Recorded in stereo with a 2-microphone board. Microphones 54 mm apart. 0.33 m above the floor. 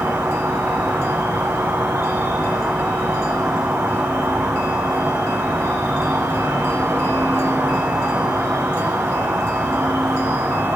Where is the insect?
60° right (ahead or behind), 1.5 m.